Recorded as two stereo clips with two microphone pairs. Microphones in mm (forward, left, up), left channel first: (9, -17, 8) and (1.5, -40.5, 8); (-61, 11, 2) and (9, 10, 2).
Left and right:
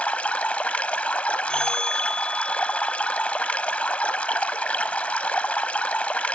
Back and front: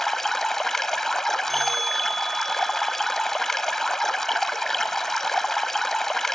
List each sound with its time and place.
0.0 s running water: 95° left, 0.8 m
1.5 s a bell: 90° left, 1.4 m